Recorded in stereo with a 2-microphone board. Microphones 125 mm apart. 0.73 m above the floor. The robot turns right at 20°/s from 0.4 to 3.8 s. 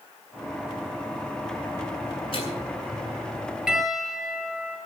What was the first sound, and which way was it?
A microwave, 50° left (ahead or behind).